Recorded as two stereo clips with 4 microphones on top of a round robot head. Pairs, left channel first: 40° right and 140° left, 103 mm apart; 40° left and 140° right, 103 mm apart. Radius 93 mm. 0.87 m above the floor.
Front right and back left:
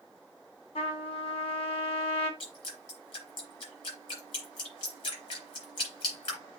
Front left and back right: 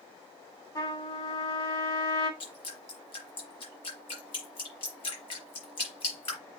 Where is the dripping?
Straight ahead, 4.5 m.